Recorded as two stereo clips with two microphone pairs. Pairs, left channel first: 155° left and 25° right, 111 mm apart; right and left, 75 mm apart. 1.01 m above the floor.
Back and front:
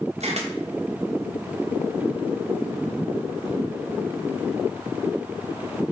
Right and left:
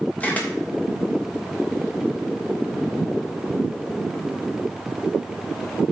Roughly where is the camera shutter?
Ahead.